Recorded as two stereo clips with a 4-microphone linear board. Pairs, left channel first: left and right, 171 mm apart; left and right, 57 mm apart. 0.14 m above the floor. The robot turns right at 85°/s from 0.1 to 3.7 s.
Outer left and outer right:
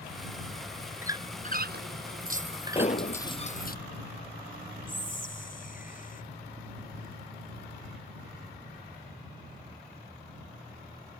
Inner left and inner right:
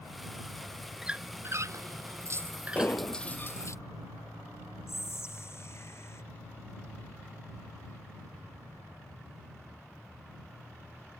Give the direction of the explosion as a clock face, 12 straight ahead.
11 o'clock.